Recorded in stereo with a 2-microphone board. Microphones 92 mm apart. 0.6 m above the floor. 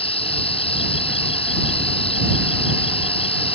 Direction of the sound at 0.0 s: 80° left.